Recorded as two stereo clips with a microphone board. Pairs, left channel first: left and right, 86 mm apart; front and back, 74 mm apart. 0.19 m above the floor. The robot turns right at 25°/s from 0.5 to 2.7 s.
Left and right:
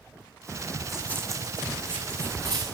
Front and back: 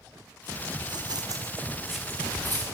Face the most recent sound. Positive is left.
turn(degrees=-55)